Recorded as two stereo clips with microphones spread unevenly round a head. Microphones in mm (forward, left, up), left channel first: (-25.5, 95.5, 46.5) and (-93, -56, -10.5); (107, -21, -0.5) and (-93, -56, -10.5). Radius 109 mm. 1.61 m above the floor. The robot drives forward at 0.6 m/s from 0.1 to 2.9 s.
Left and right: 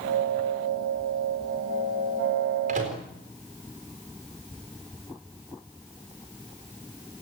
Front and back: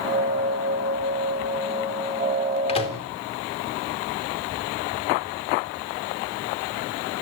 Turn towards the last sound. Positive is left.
turn(degrees=-55)